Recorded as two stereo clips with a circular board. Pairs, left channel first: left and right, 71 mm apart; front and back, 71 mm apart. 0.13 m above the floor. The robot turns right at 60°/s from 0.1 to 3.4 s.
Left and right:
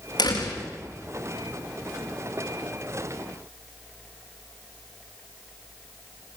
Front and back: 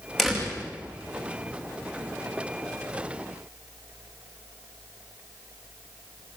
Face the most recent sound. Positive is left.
turn(degrees=-85)